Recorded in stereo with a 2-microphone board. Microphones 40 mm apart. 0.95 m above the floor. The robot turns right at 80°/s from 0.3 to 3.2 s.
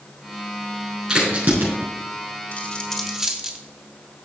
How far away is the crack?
About 5 m.